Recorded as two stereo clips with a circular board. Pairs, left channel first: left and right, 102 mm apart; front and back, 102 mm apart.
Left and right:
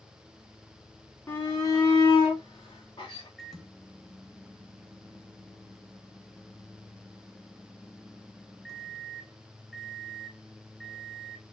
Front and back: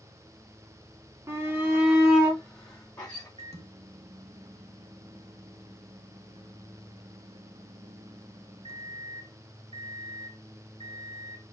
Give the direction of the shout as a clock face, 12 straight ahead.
7 o'clock.